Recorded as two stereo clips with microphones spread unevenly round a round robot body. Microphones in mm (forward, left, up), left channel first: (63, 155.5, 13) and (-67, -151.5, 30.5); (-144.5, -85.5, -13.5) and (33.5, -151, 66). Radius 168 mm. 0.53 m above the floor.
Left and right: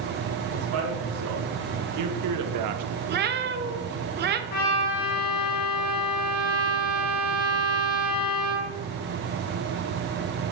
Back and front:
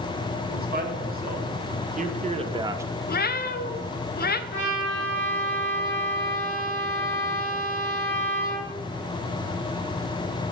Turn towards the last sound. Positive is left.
turn(degrees=95)